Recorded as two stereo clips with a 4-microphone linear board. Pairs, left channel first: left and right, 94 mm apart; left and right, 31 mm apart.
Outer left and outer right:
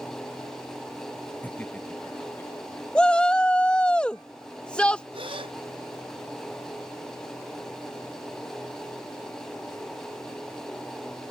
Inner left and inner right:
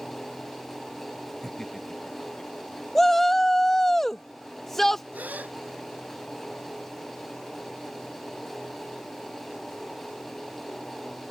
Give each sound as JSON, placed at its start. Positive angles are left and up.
{"t": 1.4, "sound": "laughter", "side_deg": 15}
{"t": 3.0, "sound": "a shout", "side_deg": 10}
{"t": 5.1, "sound": "a gasp", "side_deg": -70}